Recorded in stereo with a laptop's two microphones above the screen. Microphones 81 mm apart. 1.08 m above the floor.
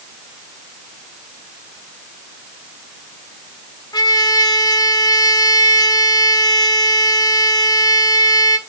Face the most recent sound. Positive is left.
turn(degrees=55)  # may be behind; listen again after turning